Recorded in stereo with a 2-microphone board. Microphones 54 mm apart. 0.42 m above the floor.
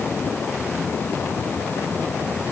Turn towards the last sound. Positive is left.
No sound to turn to.